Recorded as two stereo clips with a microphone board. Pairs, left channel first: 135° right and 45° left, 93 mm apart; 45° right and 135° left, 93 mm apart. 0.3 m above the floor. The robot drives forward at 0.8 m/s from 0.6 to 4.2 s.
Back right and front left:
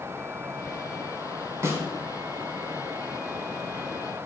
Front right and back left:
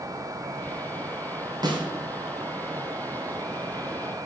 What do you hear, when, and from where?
1.6 s a snare drum: 100° left, 2.5 m; by 1.9 s 105° left, 2.5 m